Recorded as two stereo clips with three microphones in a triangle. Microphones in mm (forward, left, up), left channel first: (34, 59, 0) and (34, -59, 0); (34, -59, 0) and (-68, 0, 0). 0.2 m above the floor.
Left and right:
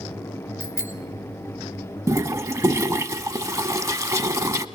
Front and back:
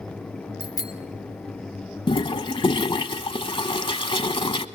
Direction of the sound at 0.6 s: 20° left.